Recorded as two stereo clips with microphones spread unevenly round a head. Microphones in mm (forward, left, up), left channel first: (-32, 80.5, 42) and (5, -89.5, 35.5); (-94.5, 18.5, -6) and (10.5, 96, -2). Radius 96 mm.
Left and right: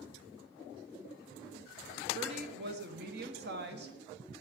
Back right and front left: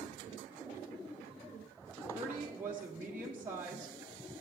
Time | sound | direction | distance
2.1 | a woman speaking | 45° right | 1.4 m